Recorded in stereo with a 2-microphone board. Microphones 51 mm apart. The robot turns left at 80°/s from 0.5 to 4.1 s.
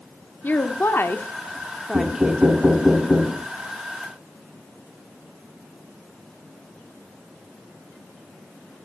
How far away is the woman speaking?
About 1.1 m.